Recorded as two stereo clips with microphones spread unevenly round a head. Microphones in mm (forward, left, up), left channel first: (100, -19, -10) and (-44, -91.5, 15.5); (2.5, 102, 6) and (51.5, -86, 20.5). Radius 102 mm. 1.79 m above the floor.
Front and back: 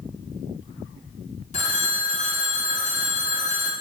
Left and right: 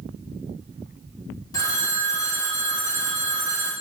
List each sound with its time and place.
1.5 s a phone ringing: 40° left, 0.7 m